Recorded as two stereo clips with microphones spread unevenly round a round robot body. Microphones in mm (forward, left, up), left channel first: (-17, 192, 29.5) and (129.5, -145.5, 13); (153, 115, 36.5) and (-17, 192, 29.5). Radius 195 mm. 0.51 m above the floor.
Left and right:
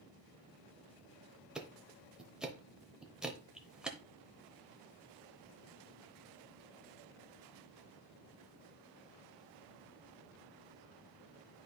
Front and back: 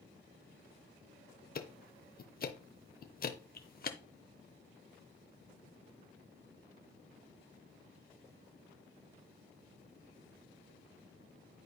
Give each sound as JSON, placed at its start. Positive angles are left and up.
{"t": 1.6, "sound": "ticking", "azimuth_deg": 20, "distance_m": 0.8}